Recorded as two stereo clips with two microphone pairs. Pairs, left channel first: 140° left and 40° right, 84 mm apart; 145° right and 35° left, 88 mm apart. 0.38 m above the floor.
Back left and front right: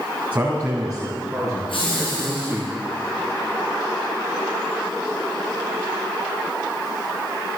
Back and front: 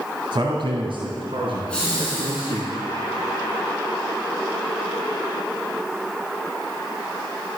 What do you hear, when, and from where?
0.3 s a man speaking: 25° left, 2 m; by 2.7 s 45° left, 5.5 m
1.7 s laughter: 135° left, 4 m